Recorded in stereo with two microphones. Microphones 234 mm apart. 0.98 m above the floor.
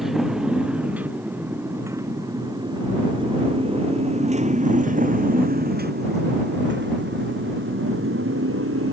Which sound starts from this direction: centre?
A motorcycle, at 0.0 s.